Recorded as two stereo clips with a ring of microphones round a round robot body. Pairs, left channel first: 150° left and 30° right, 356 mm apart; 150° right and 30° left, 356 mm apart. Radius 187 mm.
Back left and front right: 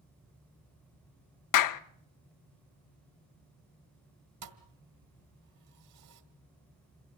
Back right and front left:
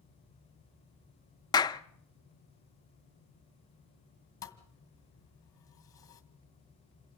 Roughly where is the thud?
Right.